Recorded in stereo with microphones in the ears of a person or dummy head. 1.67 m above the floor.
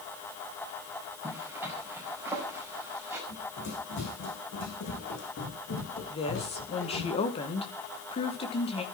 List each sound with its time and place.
1.2 s a zipper: 10° right (ahead or behind), 5 m
3.3 s running footsteps: 75° left (ahead or behind), 7.5 m
6.1 s a woman speaking: 35° left (ahead or behind), 2 m